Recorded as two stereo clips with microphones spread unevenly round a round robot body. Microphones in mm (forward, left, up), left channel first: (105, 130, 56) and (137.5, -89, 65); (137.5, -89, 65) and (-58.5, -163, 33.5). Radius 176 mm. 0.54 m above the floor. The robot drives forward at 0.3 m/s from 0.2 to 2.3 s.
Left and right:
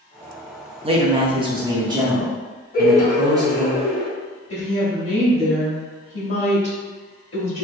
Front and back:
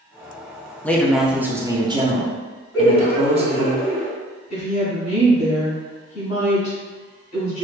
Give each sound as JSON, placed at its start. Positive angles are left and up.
{"t": 0.8, "sound": "a man speaking", "azimuth_deg": -75, "distance_m": 0.7}
{"t": 2.7, "sound": "laughter", "azimuth_deg": 100, "distance_m": 1.1}
{"t": 4.5, "sound": "a woman speaking", "azimuth_deg": 95, "distance_m": 1.3}